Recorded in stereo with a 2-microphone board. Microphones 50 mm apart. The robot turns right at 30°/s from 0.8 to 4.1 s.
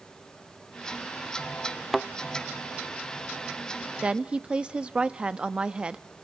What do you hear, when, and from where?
1.9 s a thud: centre (ahead or behind), 0.6 m; by 2.1 s 5° left (ahead or behind), 0.6 m
4.0 s a woman speaking: 20° right (ahead or behind), 0.7 m